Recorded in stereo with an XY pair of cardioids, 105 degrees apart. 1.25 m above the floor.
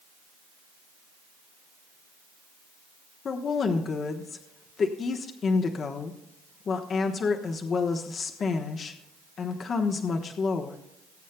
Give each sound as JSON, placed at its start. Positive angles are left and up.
{"t": 3.2, "sound": "a woman speaking", "azimuth_deg": 50, "distance_m": 1.1}